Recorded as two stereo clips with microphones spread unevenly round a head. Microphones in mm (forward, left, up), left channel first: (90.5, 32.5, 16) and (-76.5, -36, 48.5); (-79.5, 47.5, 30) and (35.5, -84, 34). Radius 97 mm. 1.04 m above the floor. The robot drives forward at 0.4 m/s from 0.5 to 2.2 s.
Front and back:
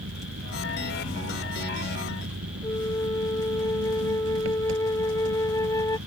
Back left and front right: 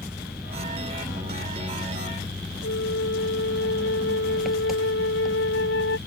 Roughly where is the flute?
Left.